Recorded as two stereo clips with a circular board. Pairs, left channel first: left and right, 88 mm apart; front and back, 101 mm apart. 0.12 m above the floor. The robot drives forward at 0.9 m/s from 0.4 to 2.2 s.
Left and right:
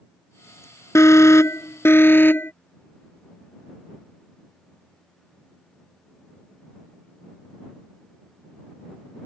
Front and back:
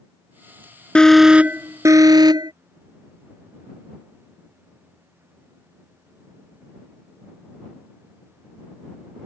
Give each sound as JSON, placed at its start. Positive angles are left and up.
{"t": 0.9, "sound": "an alarm", "azimuth_deg": 70}